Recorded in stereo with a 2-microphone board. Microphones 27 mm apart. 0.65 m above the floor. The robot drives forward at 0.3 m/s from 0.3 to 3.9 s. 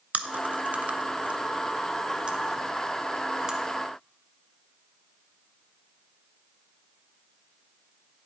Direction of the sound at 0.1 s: 65° right (ahead or behind).